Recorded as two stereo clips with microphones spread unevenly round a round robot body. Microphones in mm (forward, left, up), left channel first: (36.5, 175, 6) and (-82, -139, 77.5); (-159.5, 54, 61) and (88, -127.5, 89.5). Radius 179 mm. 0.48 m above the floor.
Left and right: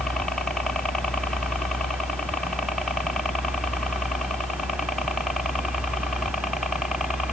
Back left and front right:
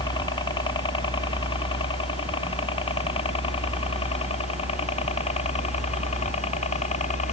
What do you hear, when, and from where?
0.0 s a helicopter: 125° left; by 7.3 s 135° left